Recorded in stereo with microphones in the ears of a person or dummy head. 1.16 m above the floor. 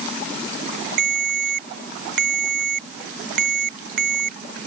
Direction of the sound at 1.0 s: 70° right (ahead or behind).